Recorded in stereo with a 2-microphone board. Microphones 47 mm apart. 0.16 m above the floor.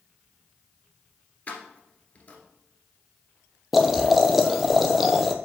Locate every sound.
1.5 s keys jangling: 30° left (ahead or behind), 1.6 m
3.7 s boiling: 5° right (ahead or behind), 0.8 m